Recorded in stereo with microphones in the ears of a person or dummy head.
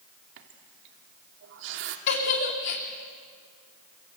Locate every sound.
0.4 s a running tap: 65° right (ahead or behind), 2.5 m
2.1 s a giggle: 50° left (ahead or behind), 3 m